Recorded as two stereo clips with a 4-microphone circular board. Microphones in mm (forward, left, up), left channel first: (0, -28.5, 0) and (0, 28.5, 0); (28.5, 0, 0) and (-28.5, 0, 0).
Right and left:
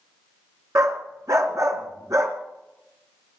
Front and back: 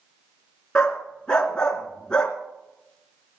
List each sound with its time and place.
0.8 s a dog barking: 75° left, 2 m